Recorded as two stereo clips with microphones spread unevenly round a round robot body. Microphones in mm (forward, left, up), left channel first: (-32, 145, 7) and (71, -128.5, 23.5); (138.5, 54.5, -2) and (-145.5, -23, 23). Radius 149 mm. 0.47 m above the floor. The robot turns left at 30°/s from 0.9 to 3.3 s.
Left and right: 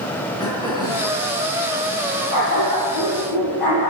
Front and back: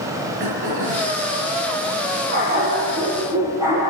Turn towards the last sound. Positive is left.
turn(degrees=115)